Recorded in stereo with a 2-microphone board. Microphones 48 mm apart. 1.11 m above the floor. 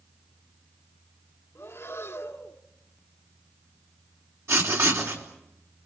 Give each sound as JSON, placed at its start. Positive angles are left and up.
{"t": 1.6, "sound": "breathing", "side_deg": 60, "distance_m": 1.8}
{"t": 4.5, "sound": "writing", "side_deg": -70, "distance_m": 4.0}